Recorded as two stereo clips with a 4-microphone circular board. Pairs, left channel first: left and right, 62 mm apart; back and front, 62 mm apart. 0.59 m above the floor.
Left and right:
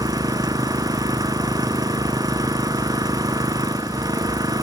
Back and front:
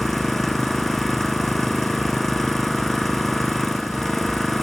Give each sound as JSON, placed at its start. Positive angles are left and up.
{"t": 0.0, "sound": "an engine running", "azimuth_deg": -95}